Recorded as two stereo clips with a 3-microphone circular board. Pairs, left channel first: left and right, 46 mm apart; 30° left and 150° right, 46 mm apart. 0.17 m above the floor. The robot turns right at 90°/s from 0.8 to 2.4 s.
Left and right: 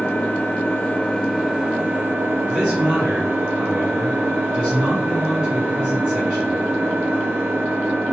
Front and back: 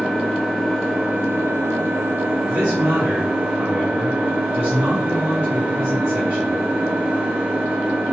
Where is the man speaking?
Straight behind, 1.6 m.